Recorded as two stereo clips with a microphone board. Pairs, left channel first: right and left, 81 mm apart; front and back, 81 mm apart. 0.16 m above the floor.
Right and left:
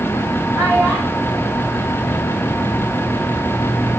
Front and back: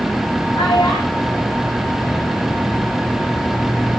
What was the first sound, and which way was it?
A child speaking, 5° left.